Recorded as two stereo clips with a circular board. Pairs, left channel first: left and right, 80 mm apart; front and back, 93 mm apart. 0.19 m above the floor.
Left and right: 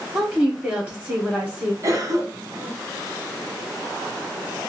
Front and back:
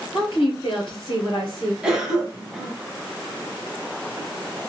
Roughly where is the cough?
Right.